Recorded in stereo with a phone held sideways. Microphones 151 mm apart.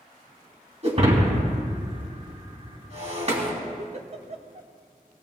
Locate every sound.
0.8 s breaking glass: 45° right (ahead or behind), 3 m
3.8 s a giggle: 45° right (ahead or behind), 1.0 m